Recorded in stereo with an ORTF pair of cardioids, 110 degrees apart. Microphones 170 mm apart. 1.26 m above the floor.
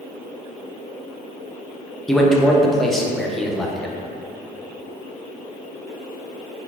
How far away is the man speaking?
About 0.6 m.